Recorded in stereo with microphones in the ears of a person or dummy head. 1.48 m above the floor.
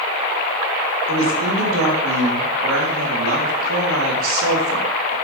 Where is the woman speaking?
85° right, 3.5 m.